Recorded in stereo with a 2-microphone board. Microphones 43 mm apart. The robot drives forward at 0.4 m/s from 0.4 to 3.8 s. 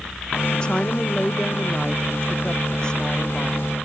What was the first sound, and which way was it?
A woman speaking, 25° left (ahead or behind).